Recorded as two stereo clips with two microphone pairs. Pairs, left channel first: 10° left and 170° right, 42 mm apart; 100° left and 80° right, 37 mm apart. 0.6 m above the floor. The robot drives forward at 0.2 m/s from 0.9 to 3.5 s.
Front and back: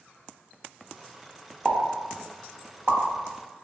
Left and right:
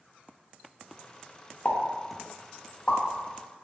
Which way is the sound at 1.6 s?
140° left.